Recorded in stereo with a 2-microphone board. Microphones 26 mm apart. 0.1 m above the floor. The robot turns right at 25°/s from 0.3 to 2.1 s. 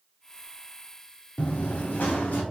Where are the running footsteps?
55° left (ahead or behind), 0.8 m; by 2.4 s 85° left, 1.6 m.